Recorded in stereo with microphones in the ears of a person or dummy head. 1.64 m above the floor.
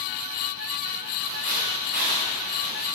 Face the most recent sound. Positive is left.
turn(degrees=-60)  # may be behind; listen again after turning